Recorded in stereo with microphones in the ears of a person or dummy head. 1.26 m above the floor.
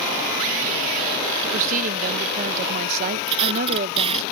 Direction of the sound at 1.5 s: 45° right (ahead or behind).